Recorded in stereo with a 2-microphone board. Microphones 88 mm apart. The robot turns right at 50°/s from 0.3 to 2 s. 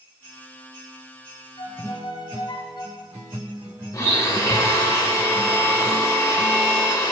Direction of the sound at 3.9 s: 40° left (ahead or behind).